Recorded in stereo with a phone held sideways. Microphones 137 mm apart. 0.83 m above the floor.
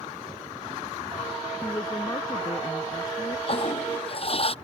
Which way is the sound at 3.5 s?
45° left (ahead or behind).